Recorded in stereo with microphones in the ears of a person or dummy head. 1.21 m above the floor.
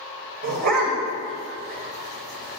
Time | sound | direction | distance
0.4 | a dog barking | 50° right (ahead or behind) | 1.8 m